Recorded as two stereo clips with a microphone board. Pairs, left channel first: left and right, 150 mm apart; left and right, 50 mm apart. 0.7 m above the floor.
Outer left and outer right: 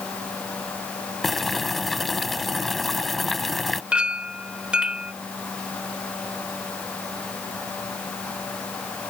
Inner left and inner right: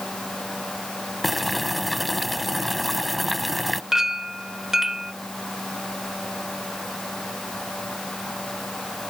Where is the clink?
5° right (ahead or behind).